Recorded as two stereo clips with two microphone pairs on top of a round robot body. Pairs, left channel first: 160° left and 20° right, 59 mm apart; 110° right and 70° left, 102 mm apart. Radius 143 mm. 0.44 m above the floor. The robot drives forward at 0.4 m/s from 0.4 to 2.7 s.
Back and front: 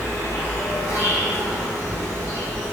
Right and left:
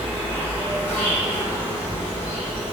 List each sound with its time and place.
0.0 s an insect: straight behind, 1.0 m